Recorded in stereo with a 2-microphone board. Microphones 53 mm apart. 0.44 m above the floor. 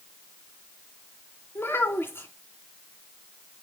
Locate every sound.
1.6 s a child speaking: 45° left (ahead or behind), 2.5 m